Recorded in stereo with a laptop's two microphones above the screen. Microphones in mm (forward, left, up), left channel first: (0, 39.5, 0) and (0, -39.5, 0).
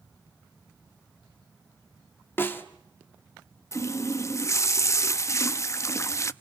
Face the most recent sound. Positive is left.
turn(degrees=35)  # may be behind; listen again after turning